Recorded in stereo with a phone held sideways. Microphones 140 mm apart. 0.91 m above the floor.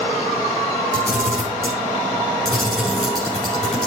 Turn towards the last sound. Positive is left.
turn(degrees=5)  # may be behind; listen again after turning